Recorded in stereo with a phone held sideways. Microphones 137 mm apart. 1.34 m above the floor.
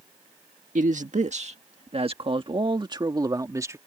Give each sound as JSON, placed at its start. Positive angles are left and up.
{"t": 0.8, "sound": "a man speaking", "side_deg": -65}